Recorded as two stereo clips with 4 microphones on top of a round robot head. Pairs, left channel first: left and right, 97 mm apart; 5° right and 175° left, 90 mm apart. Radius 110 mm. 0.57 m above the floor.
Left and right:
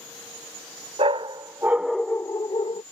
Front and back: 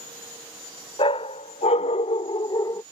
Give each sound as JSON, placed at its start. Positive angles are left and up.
{"t": 1.0, "sound": "a dog barking", "azimuth_deg": -45}